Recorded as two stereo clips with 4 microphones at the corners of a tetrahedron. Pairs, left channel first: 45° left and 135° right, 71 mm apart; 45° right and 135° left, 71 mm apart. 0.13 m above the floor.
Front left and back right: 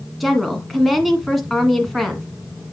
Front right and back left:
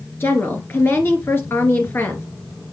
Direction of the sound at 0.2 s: 45° right.